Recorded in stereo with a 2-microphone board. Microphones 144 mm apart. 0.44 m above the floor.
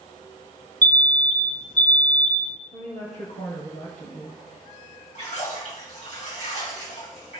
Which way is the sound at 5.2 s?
55° left (ahead or behind).